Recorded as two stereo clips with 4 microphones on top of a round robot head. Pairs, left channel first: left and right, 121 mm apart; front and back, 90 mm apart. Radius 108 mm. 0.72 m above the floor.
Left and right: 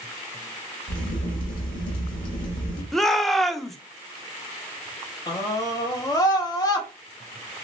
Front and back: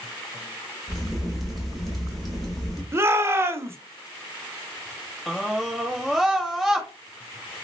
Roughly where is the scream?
Left.